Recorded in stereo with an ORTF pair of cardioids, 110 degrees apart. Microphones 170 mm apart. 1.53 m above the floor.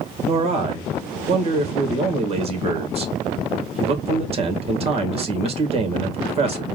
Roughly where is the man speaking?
Ahead right.